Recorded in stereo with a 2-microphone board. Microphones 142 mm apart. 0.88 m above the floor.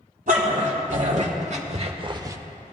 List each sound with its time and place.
0.3 s a dog barking: 65° right (ahead or behind), 1.9 m; by 2.4 s 20° right (ahead or behind), 0.6 m